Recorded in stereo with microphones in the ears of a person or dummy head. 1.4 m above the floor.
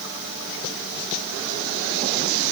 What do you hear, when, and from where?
Only background noise.